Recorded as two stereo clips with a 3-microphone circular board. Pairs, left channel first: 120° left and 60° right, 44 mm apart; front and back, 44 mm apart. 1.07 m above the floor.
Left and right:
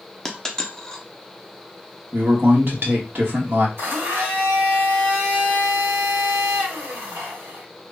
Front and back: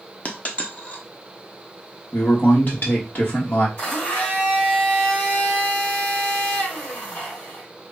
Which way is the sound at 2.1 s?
35° right.